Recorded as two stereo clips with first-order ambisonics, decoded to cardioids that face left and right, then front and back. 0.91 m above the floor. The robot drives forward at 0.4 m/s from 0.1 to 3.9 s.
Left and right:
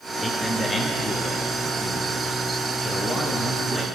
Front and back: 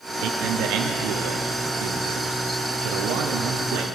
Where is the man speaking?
170° left, 1.5 m; by 3.9 s 175° left, 3 m.